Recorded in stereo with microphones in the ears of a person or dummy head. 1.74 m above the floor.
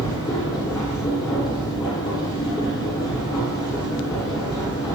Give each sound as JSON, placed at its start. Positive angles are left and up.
{"t": 0.0, "sound": "a machine running", "side_deg": 20, "distance_m": 1.6}